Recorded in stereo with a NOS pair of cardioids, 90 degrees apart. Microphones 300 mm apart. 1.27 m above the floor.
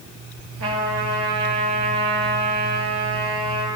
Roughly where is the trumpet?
Ahead right.